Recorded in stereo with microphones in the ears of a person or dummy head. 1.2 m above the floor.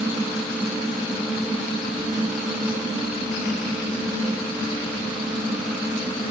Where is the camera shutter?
I don't hear a camera shutter.